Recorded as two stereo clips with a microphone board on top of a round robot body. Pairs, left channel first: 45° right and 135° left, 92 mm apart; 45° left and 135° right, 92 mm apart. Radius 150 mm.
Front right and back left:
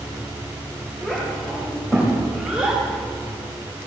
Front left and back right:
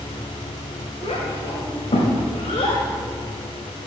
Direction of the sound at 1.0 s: 35° left.